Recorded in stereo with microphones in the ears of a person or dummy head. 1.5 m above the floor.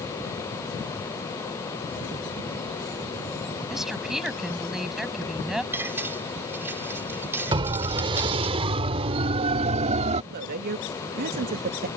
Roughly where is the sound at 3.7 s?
Centre.